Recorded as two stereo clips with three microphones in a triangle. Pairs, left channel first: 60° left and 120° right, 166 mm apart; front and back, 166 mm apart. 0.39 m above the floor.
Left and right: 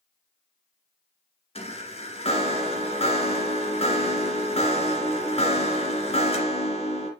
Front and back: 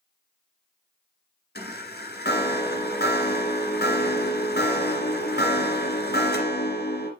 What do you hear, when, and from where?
1.6 s a chime: 5° left, 2.0 m